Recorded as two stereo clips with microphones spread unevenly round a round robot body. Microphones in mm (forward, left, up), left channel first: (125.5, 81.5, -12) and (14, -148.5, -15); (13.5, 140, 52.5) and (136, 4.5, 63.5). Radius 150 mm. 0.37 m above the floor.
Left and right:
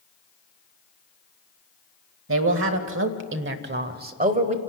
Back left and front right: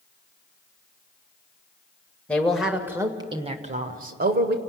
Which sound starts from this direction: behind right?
A man speaking, at 2.3 s.